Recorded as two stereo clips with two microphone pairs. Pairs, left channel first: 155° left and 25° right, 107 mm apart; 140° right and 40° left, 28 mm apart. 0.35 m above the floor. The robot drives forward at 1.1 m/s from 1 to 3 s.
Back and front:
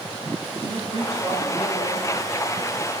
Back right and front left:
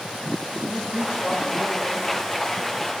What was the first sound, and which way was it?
A man speaking, 25° right.